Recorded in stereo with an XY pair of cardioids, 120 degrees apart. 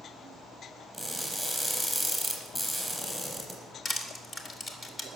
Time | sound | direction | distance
0.9 | crushing | straight ahead | 5 m
3.9 | crushing | 30° left | 2.5 m